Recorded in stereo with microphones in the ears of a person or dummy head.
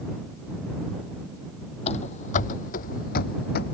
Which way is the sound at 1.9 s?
40° left (ahead or behind).